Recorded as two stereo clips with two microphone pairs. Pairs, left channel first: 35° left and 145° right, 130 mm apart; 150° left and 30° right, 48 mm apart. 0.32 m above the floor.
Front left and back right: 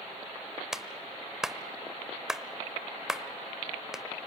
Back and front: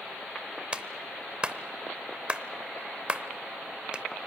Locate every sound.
0.7 s a clap: 70° right, 0.8 m